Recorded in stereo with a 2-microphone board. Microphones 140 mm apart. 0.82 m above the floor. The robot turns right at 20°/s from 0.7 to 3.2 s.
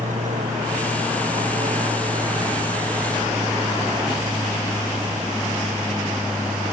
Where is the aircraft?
70° right; by 6.7 s 20° right.